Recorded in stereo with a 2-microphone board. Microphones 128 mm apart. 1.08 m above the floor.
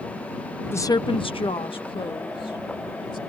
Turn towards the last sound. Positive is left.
turn(degrees=40)  # may be behind; listen again after turning